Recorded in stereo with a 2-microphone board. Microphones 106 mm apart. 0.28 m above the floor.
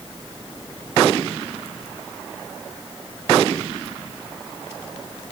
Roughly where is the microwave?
No microwave in this recording.